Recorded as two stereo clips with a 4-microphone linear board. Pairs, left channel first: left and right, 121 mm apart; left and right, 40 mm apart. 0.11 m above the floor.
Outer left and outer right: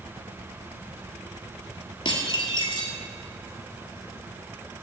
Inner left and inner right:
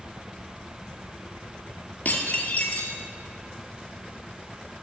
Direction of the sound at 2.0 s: 40° left (ahead or behind).